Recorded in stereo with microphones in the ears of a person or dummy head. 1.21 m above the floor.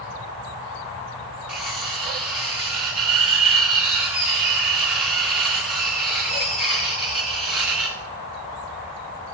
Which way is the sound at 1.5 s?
Centre (ahead or behind).